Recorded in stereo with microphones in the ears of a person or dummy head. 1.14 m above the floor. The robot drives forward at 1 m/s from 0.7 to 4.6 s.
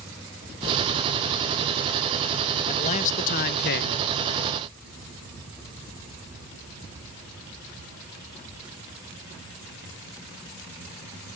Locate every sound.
2.7 s a man speaking: 35° left (ahead or behind); by 4.1 s 60° left (ahead or behind)